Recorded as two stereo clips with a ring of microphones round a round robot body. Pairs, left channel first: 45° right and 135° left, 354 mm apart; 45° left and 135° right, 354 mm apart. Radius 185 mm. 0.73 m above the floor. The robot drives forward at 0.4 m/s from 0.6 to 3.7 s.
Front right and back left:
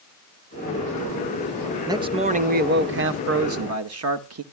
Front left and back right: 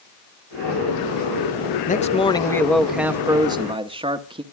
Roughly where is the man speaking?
Left.